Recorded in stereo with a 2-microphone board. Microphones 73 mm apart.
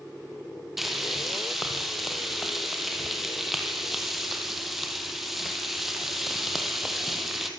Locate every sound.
0.8 s frying: 5° right (ahead or behind), 3.5 m